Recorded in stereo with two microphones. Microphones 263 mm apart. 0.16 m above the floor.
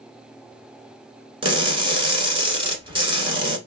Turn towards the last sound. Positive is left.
turn(degrees=-20)  # may be behind; listen again after turning